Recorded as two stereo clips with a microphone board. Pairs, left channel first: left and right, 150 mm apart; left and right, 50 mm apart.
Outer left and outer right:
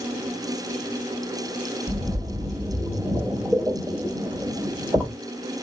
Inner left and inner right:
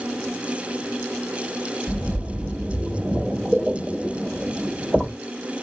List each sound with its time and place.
1.9 s a splash: 5° left (ahead or behind), 1.5 m